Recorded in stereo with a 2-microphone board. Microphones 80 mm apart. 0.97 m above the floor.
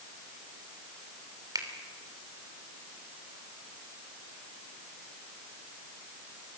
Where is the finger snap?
50° right (ahead or behind), 3 m.